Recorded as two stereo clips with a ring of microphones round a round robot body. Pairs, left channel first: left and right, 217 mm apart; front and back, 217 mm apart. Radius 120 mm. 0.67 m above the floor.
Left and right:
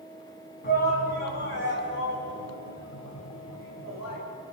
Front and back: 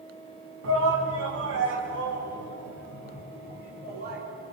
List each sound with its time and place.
0.6 s a shout: 145° left, 5 m; by 4.2 s 120° left, 7.5 m